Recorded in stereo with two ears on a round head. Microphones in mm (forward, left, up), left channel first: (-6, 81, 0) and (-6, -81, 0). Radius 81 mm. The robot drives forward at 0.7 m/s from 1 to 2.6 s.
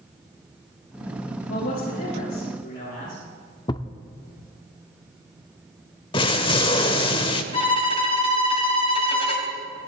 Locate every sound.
1.5 s a man speaking: 55° left (ahead or behind), 7 m; by 3.2 s 50° left (ahead or behind), 7.5 m
3.7 s a thud: 25° left (ahead or behind), 0.7 m
6.1 s an explosion: 30° left (ahead or behind), 0.9 m
7.5 s a violin: 30° left (ahead or behind), 2.5 m